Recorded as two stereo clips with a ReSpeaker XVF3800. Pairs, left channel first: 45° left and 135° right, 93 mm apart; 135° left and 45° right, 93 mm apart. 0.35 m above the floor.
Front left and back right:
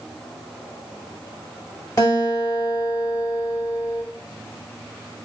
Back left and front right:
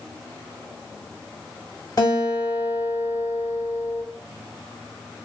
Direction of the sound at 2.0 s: 90° left.